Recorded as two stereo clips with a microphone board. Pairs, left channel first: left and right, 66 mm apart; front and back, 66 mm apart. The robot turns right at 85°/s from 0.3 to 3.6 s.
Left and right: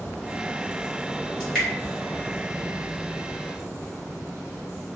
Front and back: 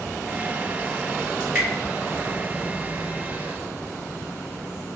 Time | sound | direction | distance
1.4 | dripping | 140° left | 1.5 m